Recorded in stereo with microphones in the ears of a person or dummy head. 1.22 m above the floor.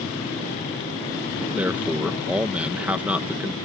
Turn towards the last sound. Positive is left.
turn(degrees=-10)  # may be behind; listen again after turning